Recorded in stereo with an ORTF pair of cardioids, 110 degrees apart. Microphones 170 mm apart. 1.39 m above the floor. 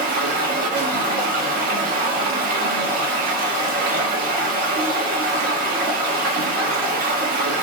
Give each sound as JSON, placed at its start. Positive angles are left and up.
{"t": 0.0, "sound": "running water", "azimuth_deg": -60, "distance_m": 0.9}